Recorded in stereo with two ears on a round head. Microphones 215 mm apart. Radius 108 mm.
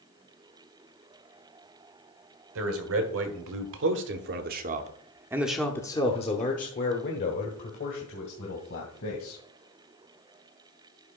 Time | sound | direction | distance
2.5 | a man speaking | 65° right (ahead or behind) | 1.9 m